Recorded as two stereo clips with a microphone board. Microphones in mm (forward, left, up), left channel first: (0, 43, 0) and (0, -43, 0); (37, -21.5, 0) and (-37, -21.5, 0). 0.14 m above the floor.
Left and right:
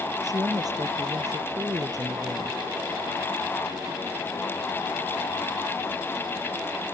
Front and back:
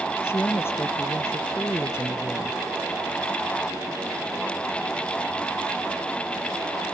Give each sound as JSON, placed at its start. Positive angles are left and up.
{"t": 0.2, "sound": "a woman speaking", "azimuth_deg": -55}